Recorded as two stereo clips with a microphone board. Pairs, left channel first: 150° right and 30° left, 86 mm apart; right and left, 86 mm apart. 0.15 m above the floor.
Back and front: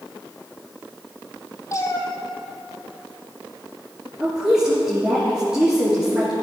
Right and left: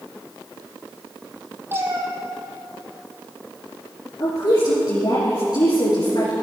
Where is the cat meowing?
155° left, 1.8 m.